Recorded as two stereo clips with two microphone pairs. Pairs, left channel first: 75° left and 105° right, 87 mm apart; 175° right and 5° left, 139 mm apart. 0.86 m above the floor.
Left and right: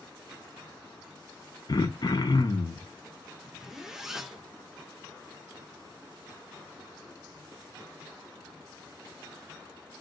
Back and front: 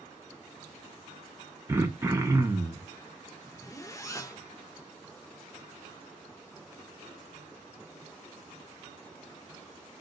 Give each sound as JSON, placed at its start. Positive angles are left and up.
{"t": 1.7, "sound": "throat clearing", "azimuth_deg": 70, "distance_m": 0.7}
{"t": 3.4, "sound": "a zipper", "azimuth_deg": -175, "distance_m": 0.6}